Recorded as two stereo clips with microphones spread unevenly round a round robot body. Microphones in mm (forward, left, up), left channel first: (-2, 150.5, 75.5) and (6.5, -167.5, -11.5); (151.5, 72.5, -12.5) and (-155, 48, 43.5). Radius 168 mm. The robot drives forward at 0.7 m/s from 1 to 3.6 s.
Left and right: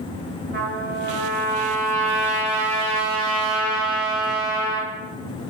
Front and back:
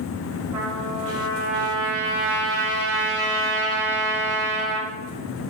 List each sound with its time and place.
0.5 s a trumpet: 135° right, 2 m; by 4.9 s 155° right, 3.5 m